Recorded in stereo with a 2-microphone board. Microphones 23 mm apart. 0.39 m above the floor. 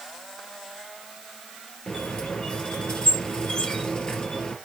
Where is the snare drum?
I don't hear a snare drum.